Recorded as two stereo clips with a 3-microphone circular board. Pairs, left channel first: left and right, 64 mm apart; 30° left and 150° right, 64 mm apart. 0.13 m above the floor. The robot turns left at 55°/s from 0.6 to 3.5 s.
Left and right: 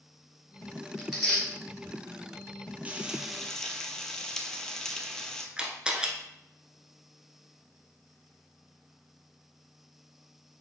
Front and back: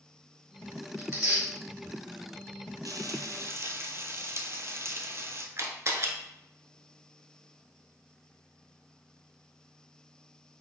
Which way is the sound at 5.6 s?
160° right.